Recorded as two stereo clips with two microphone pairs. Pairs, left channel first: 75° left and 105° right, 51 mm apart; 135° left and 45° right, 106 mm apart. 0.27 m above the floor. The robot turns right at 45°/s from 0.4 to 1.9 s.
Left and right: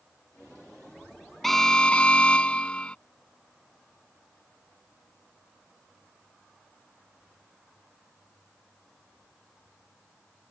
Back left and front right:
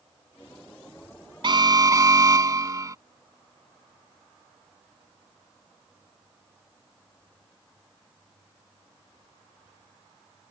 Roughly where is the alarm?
Ahead.